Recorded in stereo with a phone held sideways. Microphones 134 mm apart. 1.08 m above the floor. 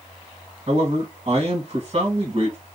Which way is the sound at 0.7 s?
50° right (ahead or behind).